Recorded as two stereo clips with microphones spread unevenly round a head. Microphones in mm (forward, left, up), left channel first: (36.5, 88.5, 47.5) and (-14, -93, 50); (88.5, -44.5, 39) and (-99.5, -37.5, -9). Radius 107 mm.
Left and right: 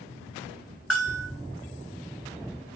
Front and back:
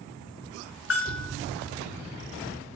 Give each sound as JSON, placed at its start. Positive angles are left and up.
{"t": 0.9, "sound": "a bell", "azimuth_deg": -15, "distance_m": 1.9}